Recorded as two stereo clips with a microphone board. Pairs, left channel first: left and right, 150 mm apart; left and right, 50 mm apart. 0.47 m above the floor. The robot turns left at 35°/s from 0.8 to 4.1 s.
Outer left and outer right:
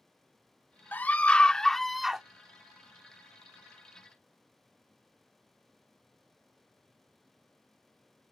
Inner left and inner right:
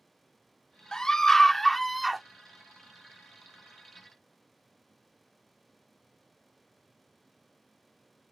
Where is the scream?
10° left (ahead or behind); by 2.2 s 5° right (ahead or behind).